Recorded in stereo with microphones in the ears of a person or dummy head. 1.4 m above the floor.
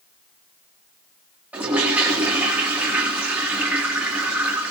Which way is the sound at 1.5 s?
5° right (ahead or behind).